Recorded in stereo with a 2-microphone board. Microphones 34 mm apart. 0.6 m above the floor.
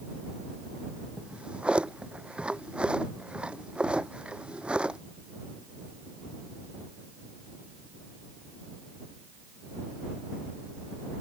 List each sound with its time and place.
1.2 s a drawer: 30° right (ahead or behind)